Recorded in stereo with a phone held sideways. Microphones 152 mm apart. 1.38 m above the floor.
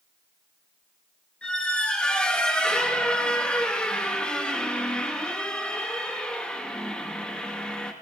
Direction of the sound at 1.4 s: 5° left (ahead or behind).